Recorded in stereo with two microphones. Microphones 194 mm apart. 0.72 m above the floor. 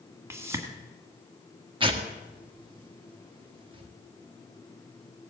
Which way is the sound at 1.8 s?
25° right (ahead or behind).